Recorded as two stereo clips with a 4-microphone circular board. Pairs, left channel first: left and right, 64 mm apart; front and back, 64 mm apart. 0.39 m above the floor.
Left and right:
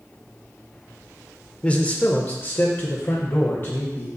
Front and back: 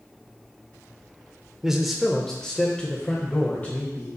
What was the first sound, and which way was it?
A man speaking, 110° left.